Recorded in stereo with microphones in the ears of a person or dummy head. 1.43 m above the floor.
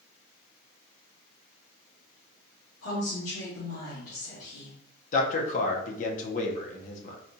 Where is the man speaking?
55° left (ahead or behind), 0.8 m.